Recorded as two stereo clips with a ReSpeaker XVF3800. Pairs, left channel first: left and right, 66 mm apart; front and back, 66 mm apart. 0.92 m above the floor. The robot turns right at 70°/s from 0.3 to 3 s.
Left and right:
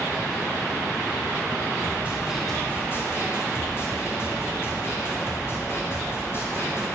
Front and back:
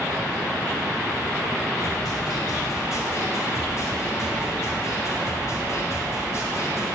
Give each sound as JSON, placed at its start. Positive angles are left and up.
{"t": 1.8, "sound": "a snare drum", "azimuth_deg": -40, "distance_m": 3.0}